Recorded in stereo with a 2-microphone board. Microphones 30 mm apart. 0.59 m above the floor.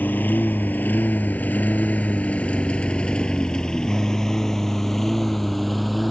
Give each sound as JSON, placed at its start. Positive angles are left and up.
{"t": 0.0, "sound": "a lawn mower", "side_deg": 85}